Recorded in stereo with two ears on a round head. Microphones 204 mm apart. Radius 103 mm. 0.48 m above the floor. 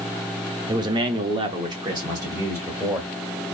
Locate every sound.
0.7 s a man speaking: 20° right (ahead or behind), 0.9 m; by 3.1 s 10° right (ahead or behind), 1.9 m